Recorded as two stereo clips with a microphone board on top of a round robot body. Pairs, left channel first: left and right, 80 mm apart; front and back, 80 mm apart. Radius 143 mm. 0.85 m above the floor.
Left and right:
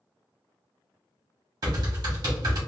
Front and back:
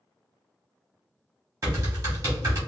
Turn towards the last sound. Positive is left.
turn(degrees=-125)